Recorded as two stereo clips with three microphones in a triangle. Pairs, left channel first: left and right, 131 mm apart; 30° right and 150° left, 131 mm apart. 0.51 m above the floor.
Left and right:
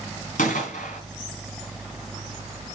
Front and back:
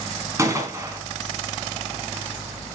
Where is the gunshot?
85° left, 3 m.